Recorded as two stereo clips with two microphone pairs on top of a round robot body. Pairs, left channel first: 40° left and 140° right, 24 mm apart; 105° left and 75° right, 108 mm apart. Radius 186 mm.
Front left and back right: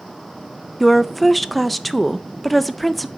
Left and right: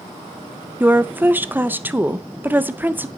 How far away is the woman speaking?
About 0.7 m.